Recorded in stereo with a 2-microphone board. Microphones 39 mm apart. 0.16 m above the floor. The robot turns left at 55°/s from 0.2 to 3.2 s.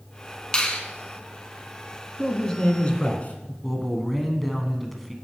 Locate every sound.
0.5 s a finger snap: 25° left (ahead or behind), 1.0 m; by 0.8 s 30° left (ahead or behind), 1.0 m
2.2 s a man speaking: 175° left, 1.3 m; by 3.5 s 120° left, 1.3 m
3.6 s a man speaking: centre (ahead or behind), 1.1 m